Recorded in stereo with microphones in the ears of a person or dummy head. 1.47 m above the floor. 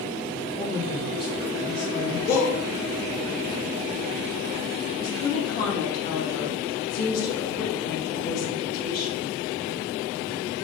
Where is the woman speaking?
50° left (ahead or behind), 1.9 m.